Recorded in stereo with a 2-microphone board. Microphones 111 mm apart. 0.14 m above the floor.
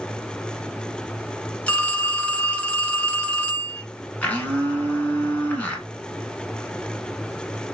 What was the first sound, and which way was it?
A phone ringing, 10° left (ahead or behind).